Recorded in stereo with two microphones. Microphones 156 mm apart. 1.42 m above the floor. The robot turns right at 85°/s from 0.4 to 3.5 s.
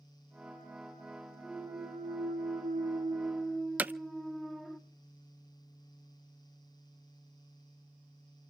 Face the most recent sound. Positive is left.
turn(degrees=-10)  # may be behind; listen again after turning